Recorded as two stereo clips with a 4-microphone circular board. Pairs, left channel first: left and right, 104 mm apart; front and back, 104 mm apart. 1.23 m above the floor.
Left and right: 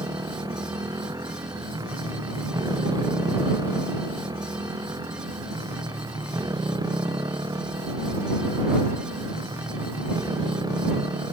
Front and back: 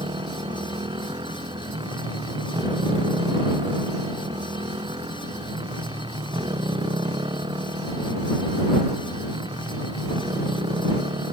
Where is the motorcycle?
140° right.